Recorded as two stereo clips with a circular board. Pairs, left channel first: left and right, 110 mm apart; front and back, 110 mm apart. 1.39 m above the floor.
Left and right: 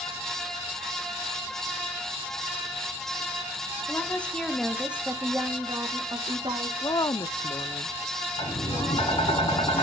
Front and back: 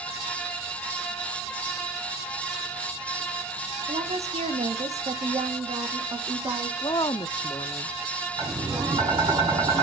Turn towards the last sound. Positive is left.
turn(degrees=125)